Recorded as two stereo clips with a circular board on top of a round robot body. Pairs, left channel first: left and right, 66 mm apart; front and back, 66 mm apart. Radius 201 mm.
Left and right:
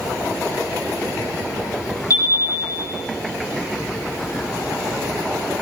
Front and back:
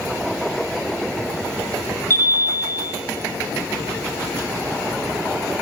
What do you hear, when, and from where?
2.1 s a chime: 55° left, 7.5 m